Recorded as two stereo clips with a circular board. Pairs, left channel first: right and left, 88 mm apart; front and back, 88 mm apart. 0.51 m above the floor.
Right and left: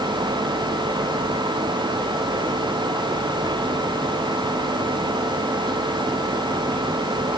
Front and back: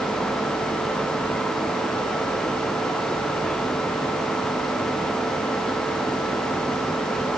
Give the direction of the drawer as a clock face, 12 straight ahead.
No drawer in this recording.